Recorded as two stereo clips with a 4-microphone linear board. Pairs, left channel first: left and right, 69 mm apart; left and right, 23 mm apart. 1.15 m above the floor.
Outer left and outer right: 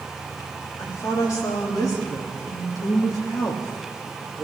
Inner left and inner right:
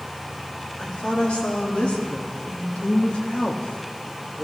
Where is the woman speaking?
55° left (ahead or behind), 2.5 m; by 4.4 s 70° left (ahead or behind), 2.5 m.